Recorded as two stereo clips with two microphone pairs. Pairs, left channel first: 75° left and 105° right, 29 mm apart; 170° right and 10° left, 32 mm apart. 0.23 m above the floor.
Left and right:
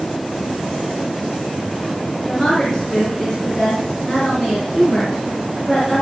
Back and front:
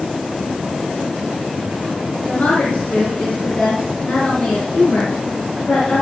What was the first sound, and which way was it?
A woman speaking, 150° left.